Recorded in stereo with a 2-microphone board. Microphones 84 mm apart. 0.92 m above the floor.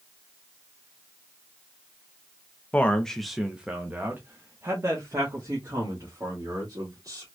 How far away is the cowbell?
No cowbell in this recording.